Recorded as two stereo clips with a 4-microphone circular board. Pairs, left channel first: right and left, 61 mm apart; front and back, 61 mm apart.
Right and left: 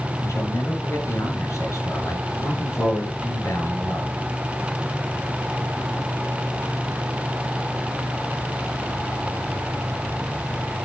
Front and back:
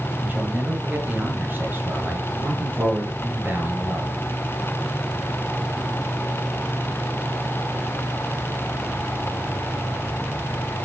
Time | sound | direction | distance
0.2 | a man speaking | 120° right | 5 m